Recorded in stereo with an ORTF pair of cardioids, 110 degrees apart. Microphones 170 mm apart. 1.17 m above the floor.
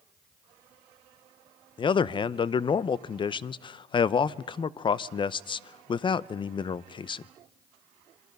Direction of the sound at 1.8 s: 30° left.